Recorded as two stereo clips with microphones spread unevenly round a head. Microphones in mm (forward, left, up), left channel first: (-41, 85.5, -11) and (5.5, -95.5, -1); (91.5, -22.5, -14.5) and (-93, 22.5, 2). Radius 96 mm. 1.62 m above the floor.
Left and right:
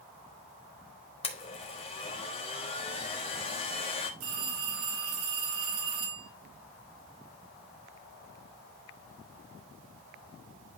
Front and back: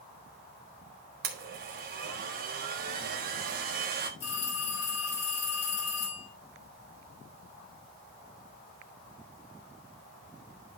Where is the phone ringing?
70° right, 5.5 m.